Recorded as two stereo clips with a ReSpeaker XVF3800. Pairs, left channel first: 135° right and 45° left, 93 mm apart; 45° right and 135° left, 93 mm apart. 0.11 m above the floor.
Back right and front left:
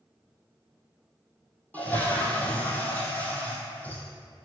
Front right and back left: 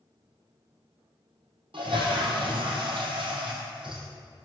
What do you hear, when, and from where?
1.7 s a toilet flushing: 155° left, 1.4 m